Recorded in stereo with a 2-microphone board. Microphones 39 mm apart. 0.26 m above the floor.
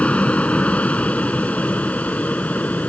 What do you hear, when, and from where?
0.0 s an aircraft: 35° left (ahead or behind); by 2.9 s 40° left (ahead or behind)